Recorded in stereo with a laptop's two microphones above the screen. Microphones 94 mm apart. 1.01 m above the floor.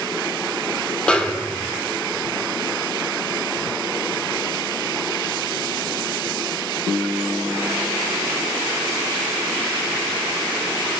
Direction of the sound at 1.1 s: 15° left (ahead or behind).